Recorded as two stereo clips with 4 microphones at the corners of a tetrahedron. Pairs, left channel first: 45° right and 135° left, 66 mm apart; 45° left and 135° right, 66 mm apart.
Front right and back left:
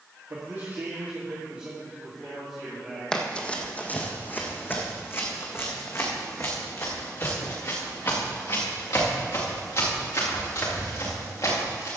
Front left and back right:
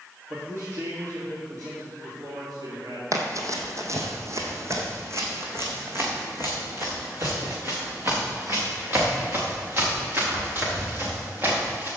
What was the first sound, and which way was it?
A man speaking, straight behind.